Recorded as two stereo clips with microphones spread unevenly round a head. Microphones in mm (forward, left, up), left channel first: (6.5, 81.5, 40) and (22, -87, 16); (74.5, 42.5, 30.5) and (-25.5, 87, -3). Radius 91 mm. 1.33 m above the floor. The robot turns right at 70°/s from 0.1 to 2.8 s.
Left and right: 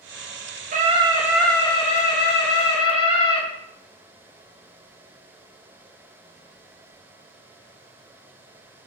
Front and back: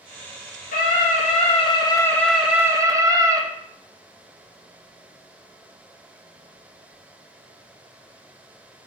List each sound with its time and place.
0.7 s a scream: 45° right, 1.1 m; by 3.4 s 100° left, 1.1 m